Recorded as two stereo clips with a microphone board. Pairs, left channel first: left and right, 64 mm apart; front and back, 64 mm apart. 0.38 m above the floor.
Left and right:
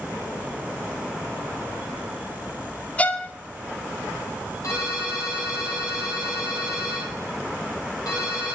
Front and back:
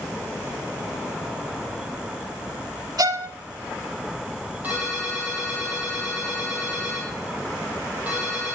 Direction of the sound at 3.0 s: 155° left.